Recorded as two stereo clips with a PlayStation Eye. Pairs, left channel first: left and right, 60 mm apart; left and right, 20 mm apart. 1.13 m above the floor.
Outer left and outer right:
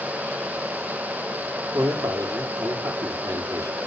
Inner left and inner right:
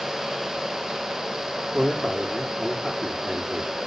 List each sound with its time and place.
1.7 s a man speaking: 75° right (ahead or behind), 2.5 m